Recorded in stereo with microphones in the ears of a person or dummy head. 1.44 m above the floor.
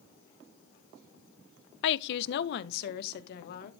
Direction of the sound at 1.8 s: 70° left (ahead or behind).